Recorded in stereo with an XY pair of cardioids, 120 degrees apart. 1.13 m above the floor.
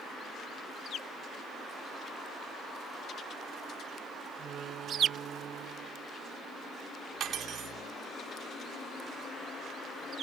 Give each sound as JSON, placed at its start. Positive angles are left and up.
{"t": 4.4, "sound": "a door slam", "azimuth_deg": -55}
{"t": 7.2, "sound": "cutlery clinking", "azimuth_deg": -55}